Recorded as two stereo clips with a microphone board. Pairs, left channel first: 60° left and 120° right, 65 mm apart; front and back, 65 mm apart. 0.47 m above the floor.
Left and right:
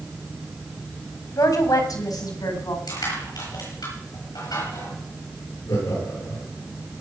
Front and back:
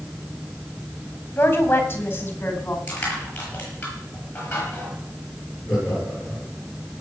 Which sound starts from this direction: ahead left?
A woman speaking, at 1.4 s.